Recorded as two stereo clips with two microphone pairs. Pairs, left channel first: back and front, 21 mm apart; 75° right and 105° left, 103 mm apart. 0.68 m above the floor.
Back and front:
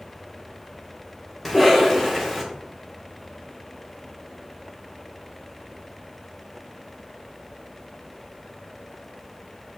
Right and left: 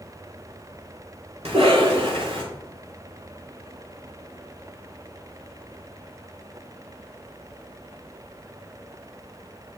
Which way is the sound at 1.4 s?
100° left.